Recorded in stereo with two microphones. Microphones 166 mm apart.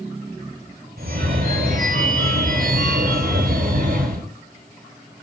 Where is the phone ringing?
65° right (ahead or behind), 3 m.